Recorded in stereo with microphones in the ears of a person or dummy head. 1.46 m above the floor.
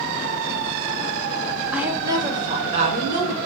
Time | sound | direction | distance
1.7 | a woman speaking | 5° right (ahead or behind) | 0.9 m